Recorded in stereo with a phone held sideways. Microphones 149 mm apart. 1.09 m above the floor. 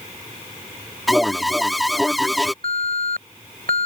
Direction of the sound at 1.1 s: Centre (ahead or behind).